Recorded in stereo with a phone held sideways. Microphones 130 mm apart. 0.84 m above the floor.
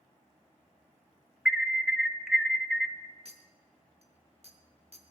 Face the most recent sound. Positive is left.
turn(degrees=-55)  # may be behind; listen again after turning